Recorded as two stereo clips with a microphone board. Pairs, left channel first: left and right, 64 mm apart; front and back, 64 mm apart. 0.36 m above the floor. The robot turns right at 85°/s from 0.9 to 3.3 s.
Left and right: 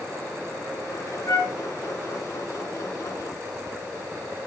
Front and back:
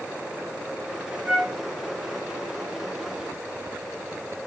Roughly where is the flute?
Left.